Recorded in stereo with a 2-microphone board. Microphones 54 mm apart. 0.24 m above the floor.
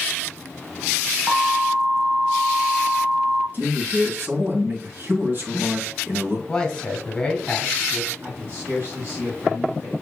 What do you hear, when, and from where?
1.3 s an alarm: 25° right (ahead or behind), 1.9 m
3.5 s a man speaking: 40° right (ahead or behind), 2.5 m
6.5 s a man speaking: centre (ahead or behind), 2.5 m
8.2 s a man speaking: 40° right (ahead or behind), 3.5 m